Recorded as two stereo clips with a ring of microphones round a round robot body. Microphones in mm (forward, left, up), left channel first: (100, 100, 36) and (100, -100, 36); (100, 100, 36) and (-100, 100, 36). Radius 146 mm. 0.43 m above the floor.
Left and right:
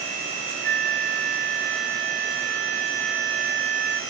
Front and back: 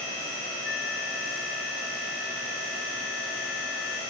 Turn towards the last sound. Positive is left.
turn(degrees=-55)